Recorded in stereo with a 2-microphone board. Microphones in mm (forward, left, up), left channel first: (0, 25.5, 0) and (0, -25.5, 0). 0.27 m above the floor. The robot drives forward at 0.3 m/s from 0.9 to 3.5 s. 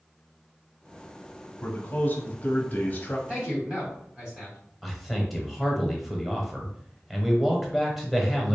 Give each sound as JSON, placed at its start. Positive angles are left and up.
{"t": 1.6, "sound": "a man speaking", "side_deg": 40, "distance_m": 1.2}
{"t": 3.3, "sound": "a man speaking", "side_deg": -25, "distance_m": 1.9}
{"t": 4.8, "sound": "a man speaking", "side_deg": 0, "distance_m": 0.9}